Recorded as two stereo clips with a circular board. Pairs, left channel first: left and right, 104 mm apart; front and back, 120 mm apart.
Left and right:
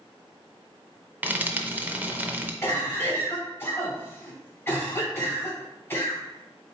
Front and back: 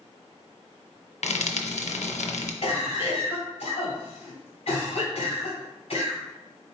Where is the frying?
15° right, 0.6 m.